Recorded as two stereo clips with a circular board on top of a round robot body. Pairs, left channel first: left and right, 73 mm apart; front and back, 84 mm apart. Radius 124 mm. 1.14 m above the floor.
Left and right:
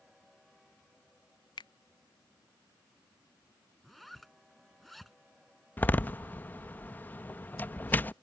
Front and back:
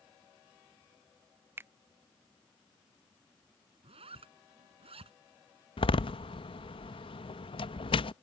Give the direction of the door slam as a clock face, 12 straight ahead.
11 o'clock.